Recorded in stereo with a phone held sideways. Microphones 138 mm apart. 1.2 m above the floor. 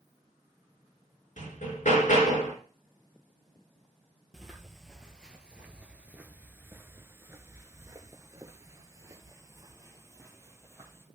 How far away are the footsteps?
About 1.9 m.